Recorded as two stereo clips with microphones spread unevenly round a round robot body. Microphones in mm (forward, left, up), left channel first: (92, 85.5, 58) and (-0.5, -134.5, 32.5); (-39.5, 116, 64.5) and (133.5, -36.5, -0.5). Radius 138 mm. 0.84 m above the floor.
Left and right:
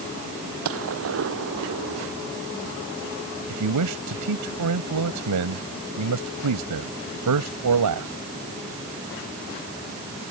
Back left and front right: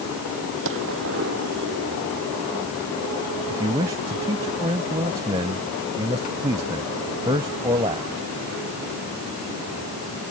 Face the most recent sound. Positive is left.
turn(degrees=-120)